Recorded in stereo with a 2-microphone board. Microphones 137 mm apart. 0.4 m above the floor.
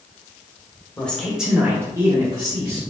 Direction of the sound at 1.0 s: 10° left (ahead or behind).